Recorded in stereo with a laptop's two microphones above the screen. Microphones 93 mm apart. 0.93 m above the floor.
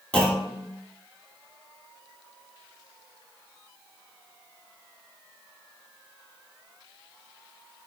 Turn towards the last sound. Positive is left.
turn(degrees=15)  # may be behind; listen again after turning